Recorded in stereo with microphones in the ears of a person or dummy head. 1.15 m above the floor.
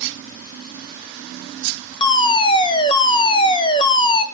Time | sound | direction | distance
2.0 | a fire alarm | 25° left (ahead or behind) | 1.0 m